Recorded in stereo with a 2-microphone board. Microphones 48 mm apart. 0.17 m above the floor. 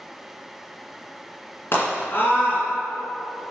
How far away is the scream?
About 2.5 m.